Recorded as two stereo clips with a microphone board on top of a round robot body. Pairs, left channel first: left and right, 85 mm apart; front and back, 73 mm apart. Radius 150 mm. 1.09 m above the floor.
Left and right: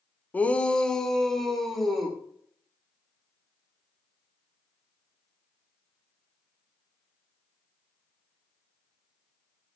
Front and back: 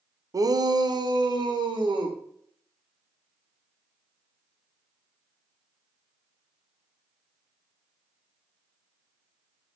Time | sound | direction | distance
0.3 | a shout | 155° left | 0.9 m